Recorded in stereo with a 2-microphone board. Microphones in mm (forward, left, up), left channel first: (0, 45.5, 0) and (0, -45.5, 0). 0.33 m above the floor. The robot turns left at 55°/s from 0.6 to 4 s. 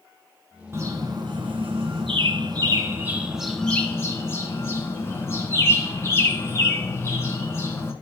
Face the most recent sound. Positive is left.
turn(degrees=150)